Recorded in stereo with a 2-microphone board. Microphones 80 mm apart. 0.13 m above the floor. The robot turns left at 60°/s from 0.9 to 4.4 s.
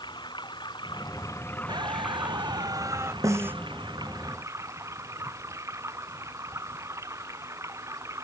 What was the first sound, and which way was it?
Running water, 70° left.